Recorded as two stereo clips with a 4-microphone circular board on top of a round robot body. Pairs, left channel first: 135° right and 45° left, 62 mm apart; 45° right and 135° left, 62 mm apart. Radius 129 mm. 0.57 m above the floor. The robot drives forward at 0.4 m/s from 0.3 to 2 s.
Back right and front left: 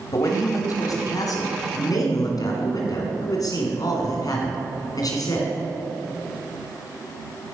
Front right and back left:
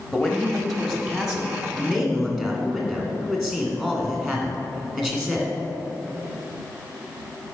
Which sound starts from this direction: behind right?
A man speaking, at 0.1 s.